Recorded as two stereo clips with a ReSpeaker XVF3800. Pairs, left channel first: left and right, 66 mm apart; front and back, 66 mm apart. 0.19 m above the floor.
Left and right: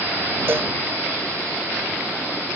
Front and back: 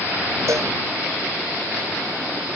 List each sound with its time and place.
0.5 s a cowbell: 140° right